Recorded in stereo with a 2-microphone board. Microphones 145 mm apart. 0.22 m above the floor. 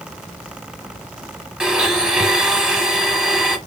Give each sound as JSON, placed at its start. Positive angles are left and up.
{"t": 1.6, "sound": "a blender", "side_deg": -5, "distance_m": 1.1}